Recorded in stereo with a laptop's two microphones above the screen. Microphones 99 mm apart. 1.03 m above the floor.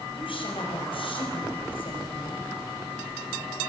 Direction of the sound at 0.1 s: 60° left (ahead or behind).